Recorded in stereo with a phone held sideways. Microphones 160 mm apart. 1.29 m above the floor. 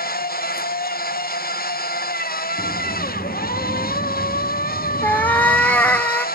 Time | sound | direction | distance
0.0 | a machine running | 60° left (ahead or behind) | 0.9 m
2.6 | a sliding door | 30° left (ahead or behind) | 2 m
5.0 | a cat meowing | 10° left (ahead or behind) | 1.2 m